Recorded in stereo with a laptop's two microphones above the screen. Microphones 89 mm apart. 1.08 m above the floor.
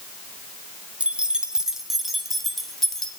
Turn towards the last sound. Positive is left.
turn(degrees=5)  # may be behind; listen again after turning